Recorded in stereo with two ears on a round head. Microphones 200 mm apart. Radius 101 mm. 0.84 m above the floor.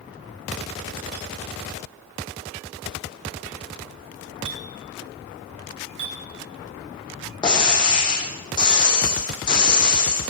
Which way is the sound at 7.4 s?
25° left (ahead or behind).